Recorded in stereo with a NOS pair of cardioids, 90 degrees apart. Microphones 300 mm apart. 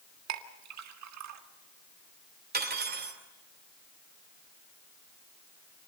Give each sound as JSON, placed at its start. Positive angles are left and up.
{"t": 0.3, "sound": "a clink", "azimuth_deg": -65, "distance_m": 1.7}
{"t": 2.5, "sound": "cutlery clinking", "azimuth_deg": -30, "distance_m": 3.0}